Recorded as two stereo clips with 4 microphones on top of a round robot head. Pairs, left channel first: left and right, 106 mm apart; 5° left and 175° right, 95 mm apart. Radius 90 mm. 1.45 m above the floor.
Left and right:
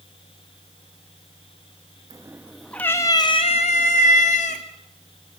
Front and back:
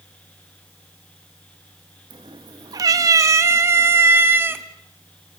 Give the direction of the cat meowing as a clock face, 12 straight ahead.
5 o'clock.